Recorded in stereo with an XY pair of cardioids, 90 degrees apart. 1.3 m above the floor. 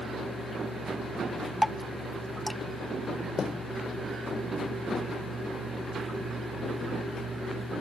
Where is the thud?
45° left.